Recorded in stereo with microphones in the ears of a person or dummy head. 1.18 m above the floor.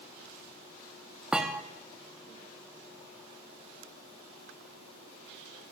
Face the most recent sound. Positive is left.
turn(degrees=-5)  # may be behind; listen again after turning